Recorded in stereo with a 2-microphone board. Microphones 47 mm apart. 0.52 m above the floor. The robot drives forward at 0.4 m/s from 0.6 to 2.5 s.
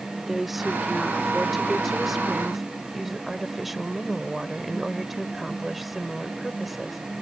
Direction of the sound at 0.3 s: Centre (ahead or behind).